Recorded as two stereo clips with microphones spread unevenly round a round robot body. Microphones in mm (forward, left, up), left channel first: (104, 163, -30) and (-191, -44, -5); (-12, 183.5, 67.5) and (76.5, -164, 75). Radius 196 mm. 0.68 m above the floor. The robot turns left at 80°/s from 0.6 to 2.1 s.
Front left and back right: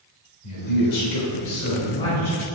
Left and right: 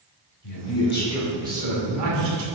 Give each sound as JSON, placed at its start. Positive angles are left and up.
{"t": 0.4, "sound": "a man speaking", "azimuth_deg": 70, "distance_m": 2.5}